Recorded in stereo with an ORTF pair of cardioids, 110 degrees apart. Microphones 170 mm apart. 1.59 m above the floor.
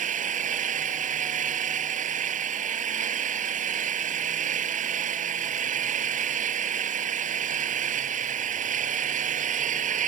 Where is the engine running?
50° right.